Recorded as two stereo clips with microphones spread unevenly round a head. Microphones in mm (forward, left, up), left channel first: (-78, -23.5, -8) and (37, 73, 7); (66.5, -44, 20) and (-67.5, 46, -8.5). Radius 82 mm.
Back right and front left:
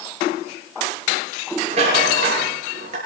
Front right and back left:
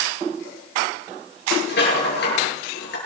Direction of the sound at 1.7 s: 10° right.